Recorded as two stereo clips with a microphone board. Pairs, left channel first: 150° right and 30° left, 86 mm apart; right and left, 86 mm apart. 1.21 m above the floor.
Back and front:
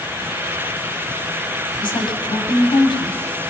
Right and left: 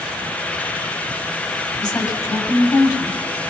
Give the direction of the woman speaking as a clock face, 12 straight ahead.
4 o'clock.